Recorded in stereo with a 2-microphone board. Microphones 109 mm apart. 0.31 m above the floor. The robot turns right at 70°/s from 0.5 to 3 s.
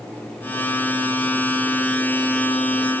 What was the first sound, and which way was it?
Only background noise.